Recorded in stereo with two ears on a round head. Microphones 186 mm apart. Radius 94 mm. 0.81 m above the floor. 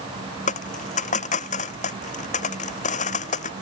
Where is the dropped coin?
40° left (ahead or behind).